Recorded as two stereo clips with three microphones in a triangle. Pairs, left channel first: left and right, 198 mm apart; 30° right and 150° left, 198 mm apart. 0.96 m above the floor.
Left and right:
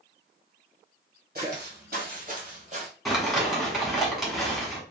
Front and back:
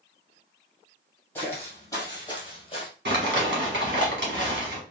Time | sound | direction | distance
1.4 | footsteps | 105° right | 1.5 m
3.0 | crumpling | straight behind | 1.3 m